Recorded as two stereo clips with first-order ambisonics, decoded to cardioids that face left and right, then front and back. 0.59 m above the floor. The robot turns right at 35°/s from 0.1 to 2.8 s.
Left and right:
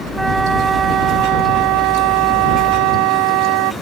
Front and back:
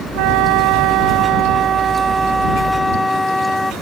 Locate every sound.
0.1 s a flute: 175° right; by 3.7 s 85° right